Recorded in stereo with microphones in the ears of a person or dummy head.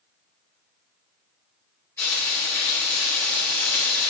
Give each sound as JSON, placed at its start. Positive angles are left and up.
{"t": 2.0, "sound": "frying", "side_deg": 10, "distance_m": 4.0}